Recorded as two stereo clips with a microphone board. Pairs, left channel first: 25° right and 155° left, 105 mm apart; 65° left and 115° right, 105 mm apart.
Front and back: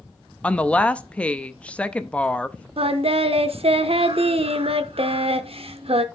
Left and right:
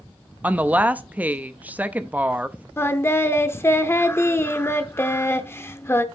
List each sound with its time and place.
0.4 s a woman speaking: 75° right, 0.5 m
2.8 s singing: 135° left, 0.7 m